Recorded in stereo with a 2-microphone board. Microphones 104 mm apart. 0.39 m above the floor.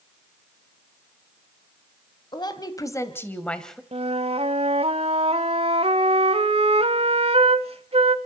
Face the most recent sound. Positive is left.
turn(degrees=-65)  # may be behind; listen again after turning